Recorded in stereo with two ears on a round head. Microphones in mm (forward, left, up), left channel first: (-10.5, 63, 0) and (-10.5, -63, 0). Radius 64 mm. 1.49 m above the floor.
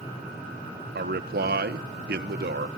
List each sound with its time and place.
0.9 s a man speaking: 85° right, 1.2 m